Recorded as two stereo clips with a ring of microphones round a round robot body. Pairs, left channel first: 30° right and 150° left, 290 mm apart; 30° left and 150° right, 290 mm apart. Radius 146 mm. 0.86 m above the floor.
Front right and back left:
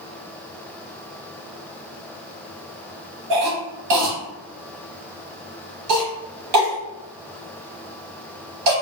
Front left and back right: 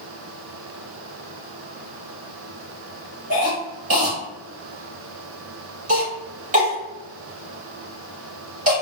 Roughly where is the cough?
Behind left.